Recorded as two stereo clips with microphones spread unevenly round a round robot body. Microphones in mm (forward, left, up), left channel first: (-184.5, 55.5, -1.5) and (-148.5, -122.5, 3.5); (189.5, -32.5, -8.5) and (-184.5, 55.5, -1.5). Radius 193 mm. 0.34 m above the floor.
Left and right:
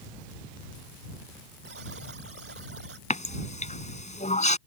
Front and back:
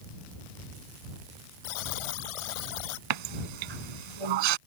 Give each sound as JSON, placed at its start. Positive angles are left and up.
{"t": 1.6, "sound": "a buzzer", "azimuth_deg": -15}
{"t": 3.1, "sound": "a running tap", "azimuth_deg": 150}